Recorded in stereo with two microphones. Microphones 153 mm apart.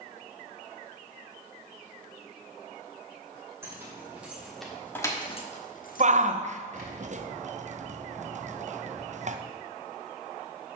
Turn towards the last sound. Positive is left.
turn(degrees=-50)  # may be behind; listen again after turning